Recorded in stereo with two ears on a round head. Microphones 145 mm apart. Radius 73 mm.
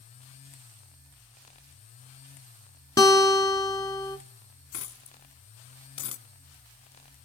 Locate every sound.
3.0 s a guitar: 20° left (ahead or behind), 1.5 m
4.7 s a dropped coin: 85° left, 1.3 m